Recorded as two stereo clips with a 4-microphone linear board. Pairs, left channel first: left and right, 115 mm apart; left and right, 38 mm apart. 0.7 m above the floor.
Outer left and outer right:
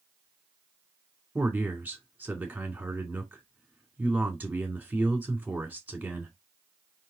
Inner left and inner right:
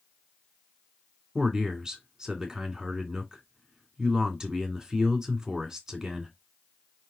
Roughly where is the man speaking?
Centre.